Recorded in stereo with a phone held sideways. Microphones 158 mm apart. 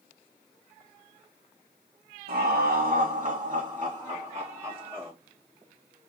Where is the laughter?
75° right (ahead or behind), 0.8 m; by 5.1 s 10° right (ahead or behind), 1.5 m.